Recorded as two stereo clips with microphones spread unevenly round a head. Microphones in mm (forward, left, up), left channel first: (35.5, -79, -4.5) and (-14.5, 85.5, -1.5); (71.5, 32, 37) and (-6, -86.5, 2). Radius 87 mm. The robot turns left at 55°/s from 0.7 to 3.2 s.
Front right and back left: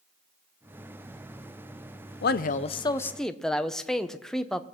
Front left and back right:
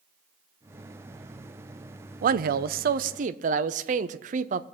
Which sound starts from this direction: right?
A man speaking, at 2.2 s.